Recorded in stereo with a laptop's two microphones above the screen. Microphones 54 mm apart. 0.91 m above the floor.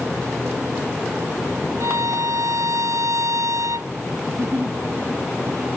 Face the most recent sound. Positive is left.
turn(degrees=-50)  # may be behind; listen again after turning